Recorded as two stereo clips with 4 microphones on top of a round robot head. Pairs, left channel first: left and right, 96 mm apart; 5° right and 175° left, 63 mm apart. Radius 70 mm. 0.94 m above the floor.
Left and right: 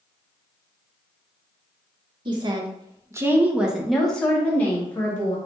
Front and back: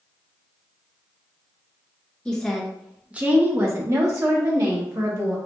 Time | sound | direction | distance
2.2 | a woman speaking | 80° right | 1.0 m